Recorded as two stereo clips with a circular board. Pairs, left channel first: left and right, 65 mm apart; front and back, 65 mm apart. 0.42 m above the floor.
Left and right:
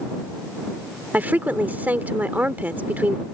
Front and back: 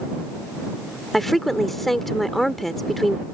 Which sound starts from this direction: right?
A woman speaking, at 1.1 s.